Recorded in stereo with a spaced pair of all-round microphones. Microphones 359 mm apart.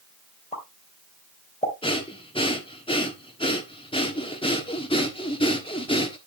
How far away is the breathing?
About 1.4 m.